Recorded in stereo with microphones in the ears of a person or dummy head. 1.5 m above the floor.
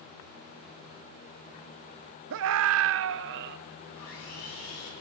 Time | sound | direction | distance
2.3 | a scream | 70° right (ahead or behind) | 0.8 m
3.9 | sawing | 80° left | 6.5 m